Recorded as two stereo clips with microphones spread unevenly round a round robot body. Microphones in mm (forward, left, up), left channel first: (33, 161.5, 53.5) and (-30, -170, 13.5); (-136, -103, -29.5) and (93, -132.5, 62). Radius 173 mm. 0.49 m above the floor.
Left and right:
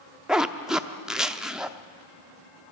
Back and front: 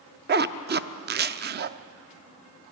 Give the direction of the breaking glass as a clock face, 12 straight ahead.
No breaking glass in this recording.